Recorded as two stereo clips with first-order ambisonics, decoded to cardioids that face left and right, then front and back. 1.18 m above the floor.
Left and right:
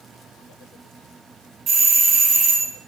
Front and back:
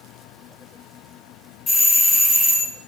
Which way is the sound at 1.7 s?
60° right.